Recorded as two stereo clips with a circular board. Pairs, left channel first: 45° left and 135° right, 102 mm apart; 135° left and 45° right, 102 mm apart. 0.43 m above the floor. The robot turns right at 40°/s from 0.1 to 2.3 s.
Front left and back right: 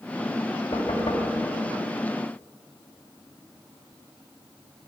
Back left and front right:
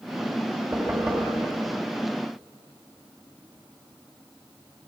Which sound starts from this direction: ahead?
Knocking, at 0.7 s.